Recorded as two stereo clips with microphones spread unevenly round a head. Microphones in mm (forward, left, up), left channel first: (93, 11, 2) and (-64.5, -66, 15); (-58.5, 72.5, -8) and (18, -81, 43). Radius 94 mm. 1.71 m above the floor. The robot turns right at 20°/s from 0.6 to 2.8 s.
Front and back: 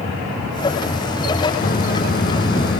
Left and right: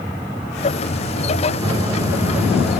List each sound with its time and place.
1.6 s a microwave: 10° right, 1.3 m; by 2.8 s 15° left, 1.3 m